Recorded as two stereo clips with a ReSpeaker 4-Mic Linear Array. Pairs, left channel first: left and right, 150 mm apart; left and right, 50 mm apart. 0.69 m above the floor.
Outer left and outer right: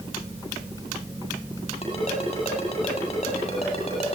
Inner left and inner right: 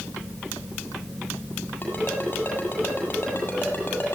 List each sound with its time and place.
1.8 s a ringtone: 40° left (ahead or behind), 8.5 m